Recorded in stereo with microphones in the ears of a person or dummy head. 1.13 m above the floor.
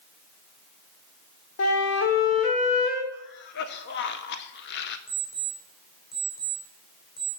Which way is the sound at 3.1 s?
55° left (ahead or behind).